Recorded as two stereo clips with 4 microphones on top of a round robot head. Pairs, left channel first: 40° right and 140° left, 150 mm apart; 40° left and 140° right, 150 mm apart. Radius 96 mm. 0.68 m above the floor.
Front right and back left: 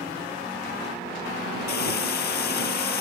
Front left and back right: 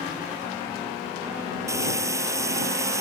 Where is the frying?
65° right.